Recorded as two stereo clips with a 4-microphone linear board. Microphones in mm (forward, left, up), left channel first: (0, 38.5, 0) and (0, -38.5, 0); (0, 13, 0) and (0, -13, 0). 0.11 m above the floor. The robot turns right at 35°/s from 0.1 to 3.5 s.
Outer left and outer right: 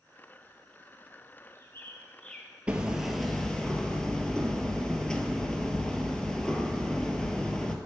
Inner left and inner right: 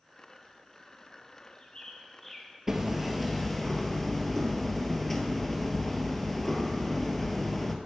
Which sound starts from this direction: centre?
Hammering, at 2.7 s.